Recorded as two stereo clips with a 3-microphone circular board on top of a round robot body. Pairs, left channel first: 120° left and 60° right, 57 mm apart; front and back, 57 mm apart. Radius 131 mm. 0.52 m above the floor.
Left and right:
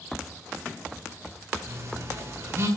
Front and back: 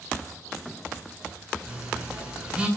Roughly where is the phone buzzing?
Right.